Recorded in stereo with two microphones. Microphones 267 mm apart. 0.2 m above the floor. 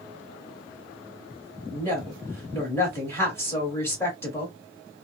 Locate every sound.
1.7 s a woman speaking: 10° left (ahead or behind), 1.8 m